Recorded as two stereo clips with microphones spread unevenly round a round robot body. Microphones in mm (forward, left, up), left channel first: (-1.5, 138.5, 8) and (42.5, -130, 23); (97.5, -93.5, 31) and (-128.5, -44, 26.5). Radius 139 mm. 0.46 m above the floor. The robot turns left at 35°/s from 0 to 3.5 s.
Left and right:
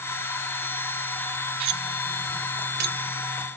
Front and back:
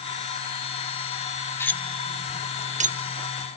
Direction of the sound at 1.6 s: 90° right.